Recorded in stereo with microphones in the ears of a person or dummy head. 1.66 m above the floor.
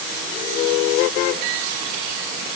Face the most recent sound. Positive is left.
No sound to turn to.